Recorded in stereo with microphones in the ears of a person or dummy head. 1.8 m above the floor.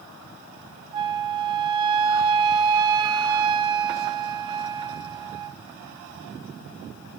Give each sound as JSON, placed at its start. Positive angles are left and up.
{"t": 0.9, "sound": "a flute", "side_deg": -25, "distance_m": 0.5}